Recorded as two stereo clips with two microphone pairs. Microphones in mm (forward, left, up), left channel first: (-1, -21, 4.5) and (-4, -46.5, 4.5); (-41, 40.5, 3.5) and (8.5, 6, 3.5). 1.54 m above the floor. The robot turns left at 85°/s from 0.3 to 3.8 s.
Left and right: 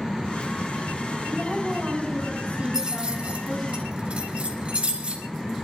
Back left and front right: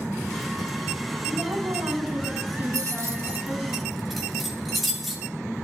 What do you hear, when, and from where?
1.3 s a woman speaking: 15° left, 4.5 m; by 3.7 s 165° left, 4.5 m
2.7 s keys jangling: 35° right, 2 m; by 5.2 s 125° right, 2 m